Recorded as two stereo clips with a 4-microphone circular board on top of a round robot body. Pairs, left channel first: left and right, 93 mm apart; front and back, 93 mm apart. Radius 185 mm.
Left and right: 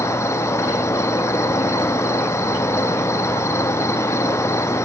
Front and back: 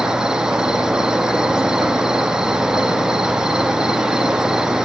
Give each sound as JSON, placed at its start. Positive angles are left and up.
{"t": 0.0, "sound": "an insect", "azimuth_deg": 105, "distance_m": 0.8}